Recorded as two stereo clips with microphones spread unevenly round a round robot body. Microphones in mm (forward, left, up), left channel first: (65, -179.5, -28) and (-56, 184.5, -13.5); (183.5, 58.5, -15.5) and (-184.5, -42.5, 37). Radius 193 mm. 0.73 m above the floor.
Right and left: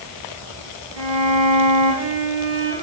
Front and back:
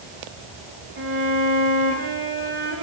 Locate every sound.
1.0 s a violin: 135° left, 9 m